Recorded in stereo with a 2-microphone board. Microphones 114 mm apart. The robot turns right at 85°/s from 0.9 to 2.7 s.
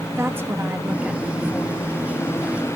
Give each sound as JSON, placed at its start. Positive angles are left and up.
{"t": 0.1, "sound": "a woman speaking", "azimuth_deg": -25, "distance_m": 1.6}